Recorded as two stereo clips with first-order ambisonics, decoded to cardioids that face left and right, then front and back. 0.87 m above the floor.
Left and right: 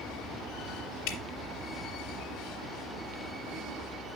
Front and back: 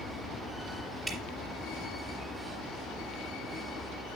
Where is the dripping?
90° left, 2.5 m.